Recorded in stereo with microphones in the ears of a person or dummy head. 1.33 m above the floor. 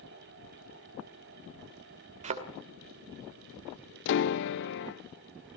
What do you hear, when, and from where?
2.2 s a thud: 35° right (ahead or behind), 2 m
4.0 s a piano: 55° left (ahead or behind), 0.6 m